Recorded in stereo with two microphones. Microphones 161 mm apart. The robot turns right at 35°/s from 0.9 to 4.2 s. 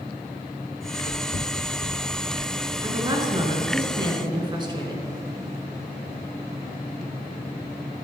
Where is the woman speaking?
125° right, 1.5 m; by 5.0 s 75° right, 1.5 m.